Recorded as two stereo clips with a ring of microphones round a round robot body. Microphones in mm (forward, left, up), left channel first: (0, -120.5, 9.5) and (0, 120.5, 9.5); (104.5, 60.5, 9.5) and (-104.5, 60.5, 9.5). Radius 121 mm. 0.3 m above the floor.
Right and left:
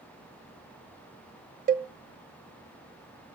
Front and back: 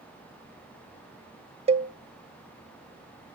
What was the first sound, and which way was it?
A cowbell, 130° left.